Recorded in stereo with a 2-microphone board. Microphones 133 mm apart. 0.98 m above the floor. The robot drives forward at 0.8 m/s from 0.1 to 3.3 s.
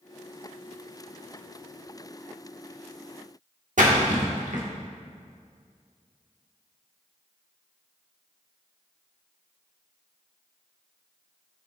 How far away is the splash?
About 1.5 m.